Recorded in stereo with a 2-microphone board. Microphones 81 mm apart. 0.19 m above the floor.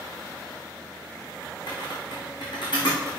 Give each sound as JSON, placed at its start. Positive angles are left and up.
{"t": 1.7, "sound": "typing on a keyboard", "side_deg": 65, "distance_m": 4.5}